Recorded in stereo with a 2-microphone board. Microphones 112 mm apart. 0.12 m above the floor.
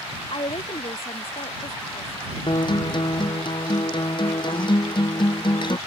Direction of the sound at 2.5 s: 45° left (ahead or behind).